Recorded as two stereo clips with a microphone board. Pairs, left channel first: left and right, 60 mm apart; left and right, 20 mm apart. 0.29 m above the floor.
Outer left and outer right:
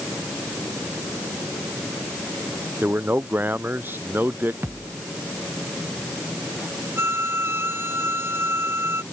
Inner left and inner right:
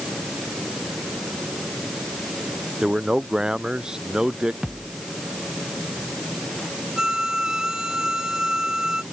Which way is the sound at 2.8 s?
40° right (ahead or behind).